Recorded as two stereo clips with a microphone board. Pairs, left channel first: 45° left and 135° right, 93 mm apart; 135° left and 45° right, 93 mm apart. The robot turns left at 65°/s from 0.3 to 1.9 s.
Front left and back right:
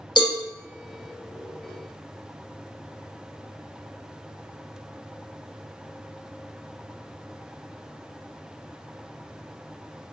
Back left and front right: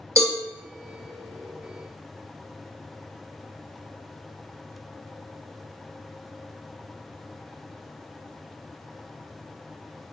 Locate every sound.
0.2 s a cowbell: 10° left, 0.7 m; by 0.4 s 5° left, 0.7 m